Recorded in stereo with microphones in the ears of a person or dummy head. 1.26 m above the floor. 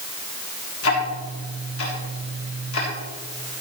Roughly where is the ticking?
Left.